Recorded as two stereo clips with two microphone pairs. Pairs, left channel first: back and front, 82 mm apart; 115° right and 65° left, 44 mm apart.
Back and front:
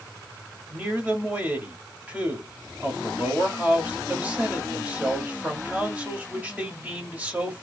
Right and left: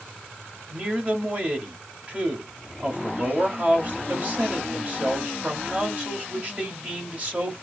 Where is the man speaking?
55° left, 1.8 m.